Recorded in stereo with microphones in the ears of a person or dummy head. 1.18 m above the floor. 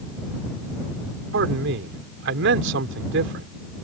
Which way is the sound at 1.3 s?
65° right (ahead or behind).